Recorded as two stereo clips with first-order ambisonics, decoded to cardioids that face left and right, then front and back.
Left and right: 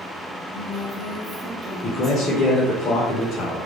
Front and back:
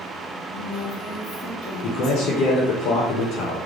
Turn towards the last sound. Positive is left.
turn(degrees=30)